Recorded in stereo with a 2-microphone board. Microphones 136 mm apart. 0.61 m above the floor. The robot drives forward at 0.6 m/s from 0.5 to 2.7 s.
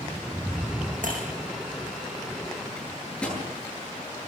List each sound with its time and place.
1.0 s breaking glass: 75° right (ahead or behind), 7 m
2.8 s a microwave: 5° left (ahead or behind), 9.5 m